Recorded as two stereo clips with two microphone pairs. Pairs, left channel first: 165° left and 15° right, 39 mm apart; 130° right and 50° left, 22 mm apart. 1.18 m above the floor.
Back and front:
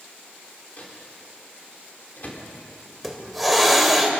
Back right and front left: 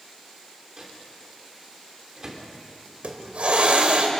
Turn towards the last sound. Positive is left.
turn(degrees=75)